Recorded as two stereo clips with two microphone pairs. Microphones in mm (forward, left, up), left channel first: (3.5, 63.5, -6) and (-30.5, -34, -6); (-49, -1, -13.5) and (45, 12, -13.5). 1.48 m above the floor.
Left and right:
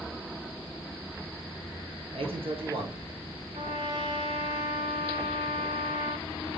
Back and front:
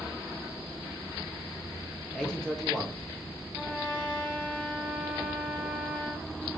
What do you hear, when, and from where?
2.1 s a man speaking: 90° right, 1.2 m
3.5 s a trumpet: 105° right, 1.9 m